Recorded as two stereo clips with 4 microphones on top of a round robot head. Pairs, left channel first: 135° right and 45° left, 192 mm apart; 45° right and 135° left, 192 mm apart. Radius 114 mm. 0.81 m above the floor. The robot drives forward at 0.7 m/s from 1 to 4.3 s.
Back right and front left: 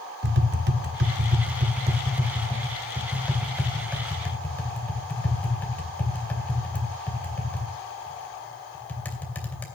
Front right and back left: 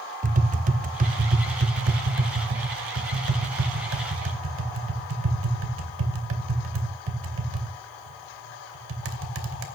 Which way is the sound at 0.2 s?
85° left.